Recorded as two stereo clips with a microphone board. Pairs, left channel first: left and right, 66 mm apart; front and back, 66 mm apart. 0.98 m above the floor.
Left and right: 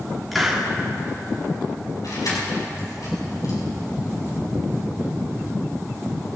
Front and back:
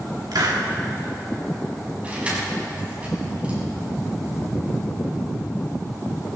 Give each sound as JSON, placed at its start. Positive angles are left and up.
{"t": 0.3, "sound": "a hiss", "azimuth_deg": 180, "distance_m": 1.9}
{"t": 2.0, "sound": "keys jangling", "azimuth_deg": 110, "distance_m": 5.5}